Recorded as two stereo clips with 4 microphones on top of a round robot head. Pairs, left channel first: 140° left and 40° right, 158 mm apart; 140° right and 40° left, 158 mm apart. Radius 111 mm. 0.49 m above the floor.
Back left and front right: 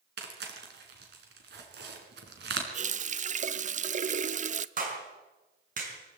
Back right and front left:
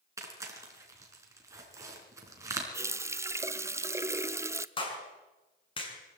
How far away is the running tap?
About 0.7 m.